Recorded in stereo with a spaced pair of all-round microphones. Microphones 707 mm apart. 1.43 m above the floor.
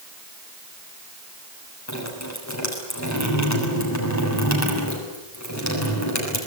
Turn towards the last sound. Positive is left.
turn(degrees=20)  # may be behind; listen again after turning